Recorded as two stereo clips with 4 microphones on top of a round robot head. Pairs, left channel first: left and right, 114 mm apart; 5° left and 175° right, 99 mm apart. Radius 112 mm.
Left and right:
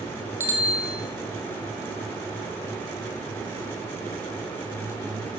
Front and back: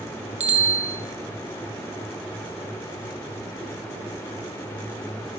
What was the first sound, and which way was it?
A bicycle bell, 165° right.